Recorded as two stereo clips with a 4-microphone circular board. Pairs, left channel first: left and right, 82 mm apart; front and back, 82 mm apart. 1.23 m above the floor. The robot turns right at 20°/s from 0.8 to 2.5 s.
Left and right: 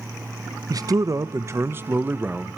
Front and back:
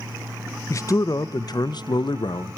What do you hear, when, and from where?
0.7 s a man speaking: 50° right, 0.6 m; by 2.6 s 15° right, 0.6 m